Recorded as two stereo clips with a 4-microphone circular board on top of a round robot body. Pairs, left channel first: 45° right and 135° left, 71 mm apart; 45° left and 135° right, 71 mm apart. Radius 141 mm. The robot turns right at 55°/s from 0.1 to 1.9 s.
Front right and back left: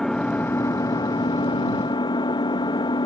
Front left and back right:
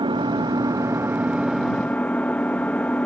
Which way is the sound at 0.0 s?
125° right.